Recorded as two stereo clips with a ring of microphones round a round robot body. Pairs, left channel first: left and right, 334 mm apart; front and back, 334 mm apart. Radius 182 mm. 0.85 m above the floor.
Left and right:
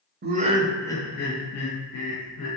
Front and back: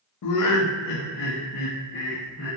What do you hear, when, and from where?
0.2 s laughter: 30° right, 0.6 m; by 2.5 s 65° left, 1.1 m